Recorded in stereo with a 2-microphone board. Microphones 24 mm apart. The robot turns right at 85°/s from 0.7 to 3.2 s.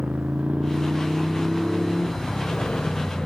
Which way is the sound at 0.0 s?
75° right (ahead or behind).